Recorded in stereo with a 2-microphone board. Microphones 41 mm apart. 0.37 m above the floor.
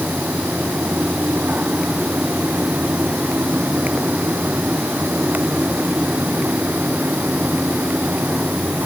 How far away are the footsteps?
No footsteps in this recording.